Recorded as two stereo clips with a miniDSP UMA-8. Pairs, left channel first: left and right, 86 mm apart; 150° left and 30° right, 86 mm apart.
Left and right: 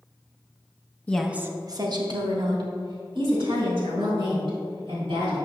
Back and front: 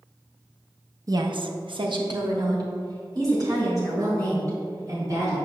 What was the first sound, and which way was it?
A woman speaking, 20° left.